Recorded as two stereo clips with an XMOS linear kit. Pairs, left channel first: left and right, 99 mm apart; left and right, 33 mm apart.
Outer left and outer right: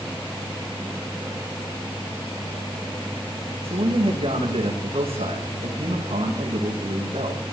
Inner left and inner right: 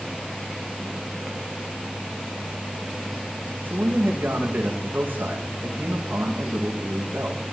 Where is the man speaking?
75° right (ahead or behind), 9.5 m.